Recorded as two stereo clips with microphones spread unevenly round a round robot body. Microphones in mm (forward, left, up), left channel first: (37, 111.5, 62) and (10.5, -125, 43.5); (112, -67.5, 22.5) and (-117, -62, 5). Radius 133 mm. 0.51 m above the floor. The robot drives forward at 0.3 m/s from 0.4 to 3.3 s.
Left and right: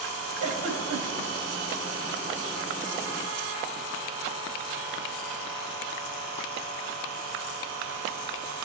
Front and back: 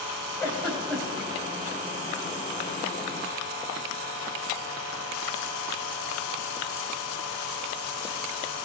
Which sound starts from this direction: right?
A giggle, at 0.4 s.